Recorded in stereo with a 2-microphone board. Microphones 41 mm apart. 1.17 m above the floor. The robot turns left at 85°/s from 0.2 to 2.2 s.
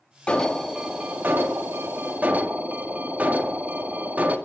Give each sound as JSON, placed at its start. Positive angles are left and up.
{"t": 0.3, "sound": "an alarm", "azimuth_deg": 25, "distance_m": 2.0}